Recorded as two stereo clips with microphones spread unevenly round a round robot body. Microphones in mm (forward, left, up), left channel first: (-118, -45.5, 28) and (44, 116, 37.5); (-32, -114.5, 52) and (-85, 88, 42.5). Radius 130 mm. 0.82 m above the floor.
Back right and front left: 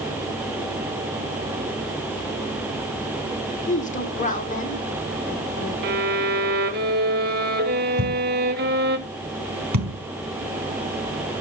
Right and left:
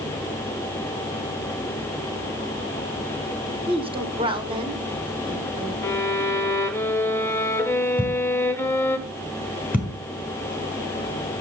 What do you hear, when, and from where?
3.7 s a woman speaking: 170° left, 2 m
5.8 s a violin: 5° left, 1.1 m
8.0 s a thud: 20° left, 4 m